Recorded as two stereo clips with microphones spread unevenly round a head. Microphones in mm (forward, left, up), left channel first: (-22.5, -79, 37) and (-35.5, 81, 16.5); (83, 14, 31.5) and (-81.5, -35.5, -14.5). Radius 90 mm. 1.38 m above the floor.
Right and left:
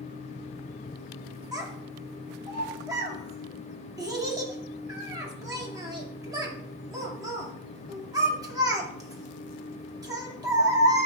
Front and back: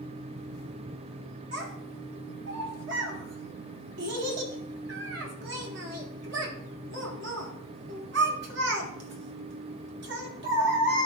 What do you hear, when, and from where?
1.5 s a child speaking: 165° left, 2 m